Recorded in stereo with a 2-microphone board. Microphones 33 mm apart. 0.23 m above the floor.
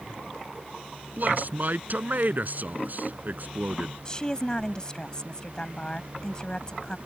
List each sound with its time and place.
1.2 s a man speaking: 60° right (ahead or behind)
4.0 s a woman speaking: 25° left (ahead or behind)